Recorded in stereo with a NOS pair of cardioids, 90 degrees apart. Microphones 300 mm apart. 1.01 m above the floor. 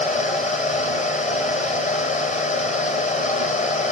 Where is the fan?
25° left, 1.7 m.